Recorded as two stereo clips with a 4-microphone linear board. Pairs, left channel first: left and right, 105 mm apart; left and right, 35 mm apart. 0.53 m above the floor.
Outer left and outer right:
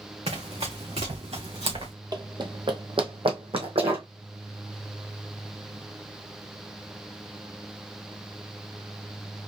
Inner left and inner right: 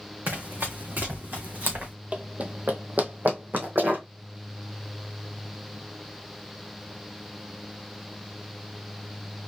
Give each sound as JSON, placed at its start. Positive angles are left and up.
{"t": 0.3, "sound": "running footsteps", "side_deg": -80, "distance_m": 2.5}
{"t": 2.1, "sound": "running footsteps", "side_deg": -40, "distance_m": 0.9}